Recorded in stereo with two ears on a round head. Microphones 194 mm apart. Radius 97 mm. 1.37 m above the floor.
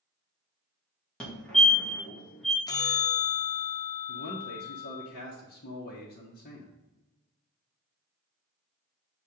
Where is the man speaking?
45° left (ahead or behind), 1.1 m.